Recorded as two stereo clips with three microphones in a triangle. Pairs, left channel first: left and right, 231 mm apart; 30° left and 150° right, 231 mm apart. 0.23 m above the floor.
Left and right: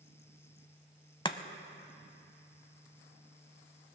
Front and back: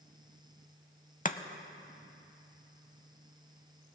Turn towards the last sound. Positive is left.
turn(degrees=40)